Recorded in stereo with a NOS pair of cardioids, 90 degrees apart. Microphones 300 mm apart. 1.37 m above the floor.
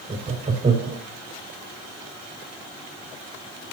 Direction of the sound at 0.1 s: 25° right.